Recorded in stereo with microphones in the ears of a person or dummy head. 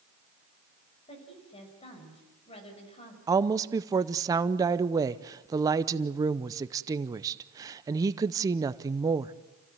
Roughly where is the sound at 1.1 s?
Left.